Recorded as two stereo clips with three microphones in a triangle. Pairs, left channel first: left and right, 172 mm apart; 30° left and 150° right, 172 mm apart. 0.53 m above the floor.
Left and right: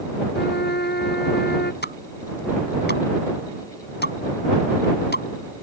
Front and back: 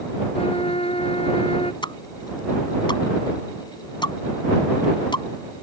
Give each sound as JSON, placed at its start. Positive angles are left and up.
{"t": 0.3, "sound": "a trumpet", "azimuth_deg": 85}
{"t": 1.8, "sound": "a pop", "azimuth_deg": 90}